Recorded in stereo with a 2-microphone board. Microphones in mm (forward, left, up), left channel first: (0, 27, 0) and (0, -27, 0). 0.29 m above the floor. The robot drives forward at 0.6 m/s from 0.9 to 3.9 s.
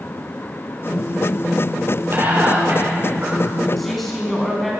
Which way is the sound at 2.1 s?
50° right (ahead or behind).